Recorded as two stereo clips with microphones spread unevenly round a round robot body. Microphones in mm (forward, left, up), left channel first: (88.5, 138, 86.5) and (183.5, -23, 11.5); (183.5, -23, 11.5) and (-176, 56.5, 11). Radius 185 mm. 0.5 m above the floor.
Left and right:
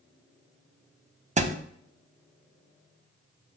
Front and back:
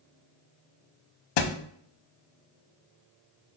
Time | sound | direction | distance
1.4 | a thud | 5° left | 0.6 m